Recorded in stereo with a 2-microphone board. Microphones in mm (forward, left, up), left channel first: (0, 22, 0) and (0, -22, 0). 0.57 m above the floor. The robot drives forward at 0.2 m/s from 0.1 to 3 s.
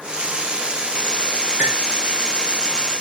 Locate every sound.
1.6 s cutlery clinking: 30° right (ahead or behind), 5.5 m